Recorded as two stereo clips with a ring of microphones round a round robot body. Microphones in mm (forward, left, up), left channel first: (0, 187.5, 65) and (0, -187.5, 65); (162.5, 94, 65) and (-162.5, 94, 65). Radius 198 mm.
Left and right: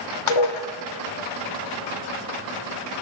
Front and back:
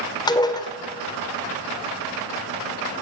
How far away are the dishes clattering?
About 2 m.